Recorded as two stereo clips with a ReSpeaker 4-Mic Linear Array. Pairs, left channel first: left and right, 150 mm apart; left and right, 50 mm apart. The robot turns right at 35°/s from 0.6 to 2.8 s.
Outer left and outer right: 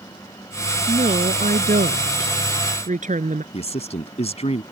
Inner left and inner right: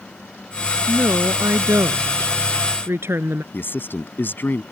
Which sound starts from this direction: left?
A man speaking, at 3.5 s.